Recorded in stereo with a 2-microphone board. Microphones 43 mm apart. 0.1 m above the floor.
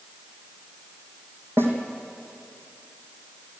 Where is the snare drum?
60° right (ahead or behind), 3.5 m.